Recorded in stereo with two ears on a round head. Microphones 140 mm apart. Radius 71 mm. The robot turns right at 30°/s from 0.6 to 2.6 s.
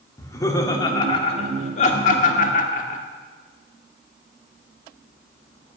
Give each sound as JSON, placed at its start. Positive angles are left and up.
{"t": 0.2, "sound": "laughter", "side_deg": 20, "distance_m": 1.9}